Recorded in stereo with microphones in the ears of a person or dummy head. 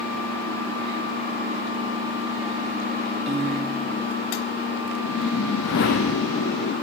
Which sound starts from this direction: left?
A whoosh, at 5.0 s.